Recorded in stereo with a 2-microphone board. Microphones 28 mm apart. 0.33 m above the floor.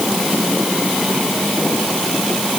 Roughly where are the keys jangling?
No keys jangling in this recording.